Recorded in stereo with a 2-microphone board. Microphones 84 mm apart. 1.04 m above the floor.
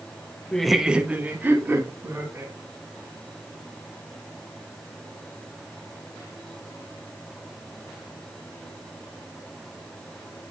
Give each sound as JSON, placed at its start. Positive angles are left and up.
{"t": 0.5, "sound": "laughter", "side_deg": 10, "distance_m": 0.6}